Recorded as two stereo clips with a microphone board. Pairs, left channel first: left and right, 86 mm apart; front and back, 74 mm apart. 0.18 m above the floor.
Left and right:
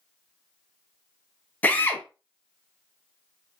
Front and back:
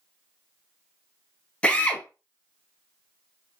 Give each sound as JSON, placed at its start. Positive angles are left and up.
{"t": 1.6, "sound": "a drill", "azimuth_deg": 50, "distance_m": 0.6}